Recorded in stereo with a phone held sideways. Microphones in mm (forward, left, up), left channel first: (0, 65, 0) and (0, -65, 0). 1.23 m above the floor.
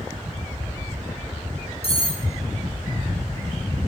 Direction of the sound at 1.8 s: 45° left (ahead or behind).